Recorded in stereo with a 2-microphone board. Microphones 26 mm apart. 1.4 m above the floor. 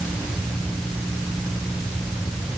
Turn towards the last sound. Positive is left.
No sound to turn to.